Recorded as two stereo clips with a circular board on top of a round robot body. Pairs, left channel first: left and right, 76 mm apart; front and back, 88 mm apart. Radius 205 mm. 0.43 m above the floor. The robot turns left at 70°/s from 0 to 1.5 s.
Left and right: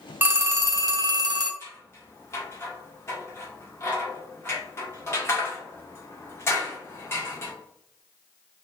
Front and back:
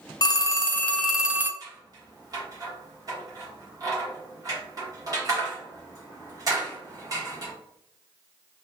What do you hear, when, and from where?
0.2 s a phone ringing: 25° right, 0.7 m; by 1.5 s 115° right, 0.7 m
1.6 s scissors: 140° left, 1.3 m